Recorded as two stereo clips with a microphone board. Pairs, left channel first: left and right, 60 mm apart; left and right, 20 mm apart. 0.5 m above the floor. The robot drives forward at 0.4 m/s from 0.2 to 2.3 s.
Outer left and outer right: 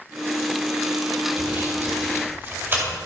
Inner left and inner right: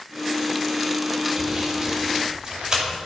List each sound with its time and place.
1.4 s sawing: 45° right (ahead or behind), 1.9 m; by 3.0 s 40° right (ahead or behind), 2 m